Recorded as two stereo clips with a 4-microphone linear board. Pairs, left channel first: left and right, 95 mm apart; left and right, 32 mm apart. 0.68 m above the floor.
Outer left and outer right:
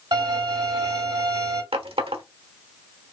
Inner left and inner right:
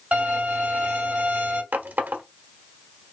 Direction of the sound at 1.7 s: 80° right.